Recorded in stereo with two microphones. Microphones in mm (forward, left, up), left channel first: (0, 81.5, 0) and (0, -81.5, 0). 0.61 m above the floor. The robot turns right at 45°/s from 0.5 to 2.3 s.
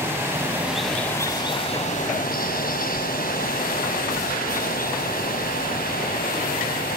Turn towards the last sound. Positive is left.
turn(degrees=65)